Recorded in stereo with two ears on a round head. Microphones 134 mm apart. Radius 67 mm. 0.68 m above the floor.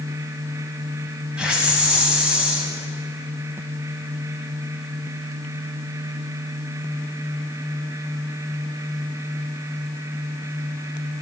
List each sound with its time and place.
1.4 s a hiss: 5° right (ahead or behind), 6 m